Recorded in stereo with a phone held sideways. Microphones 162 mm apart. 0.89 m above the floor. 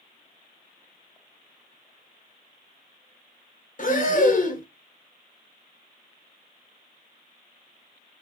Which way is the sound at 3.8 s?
55° left (ahead or behind).